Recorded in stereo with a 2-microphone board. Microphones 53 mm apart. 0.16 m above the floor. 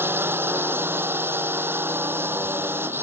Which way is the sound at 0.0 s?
45° right (ahead or behind).